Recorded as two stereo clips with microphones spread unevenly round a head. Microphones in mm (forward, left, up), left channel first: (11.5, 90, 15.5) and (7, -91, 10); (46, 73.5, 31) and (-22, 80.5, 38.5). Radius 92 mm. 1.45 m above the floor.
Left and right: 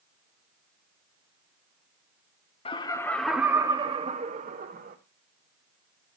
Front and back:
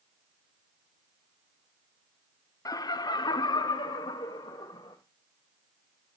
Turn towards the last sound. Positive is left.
turn(degrees=-50)